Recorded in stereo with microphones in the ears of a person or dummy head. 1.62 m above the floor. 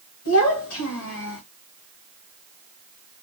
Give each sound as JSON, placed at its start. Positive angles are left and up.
{"t": 0.2, "sound": "a child speaking", "side_deg": 70, "distance_m": 1.5}